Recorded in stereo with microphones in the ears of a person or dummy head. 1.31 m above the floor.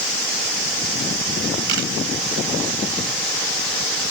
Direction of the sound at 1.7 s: 65° right (ahead or behind).